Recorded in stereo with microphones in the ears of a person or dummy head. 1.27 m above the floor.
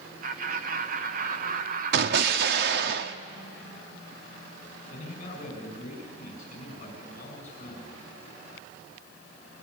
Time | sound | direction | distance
0.2 | laughter | 45° right (ahead or behind) | 1.5 m
1.9 | an explosion | 65° right (ahead or behind) | 1.4 m
4.9 | a man speaking | 40° left (ahead or behind) | 6.5 m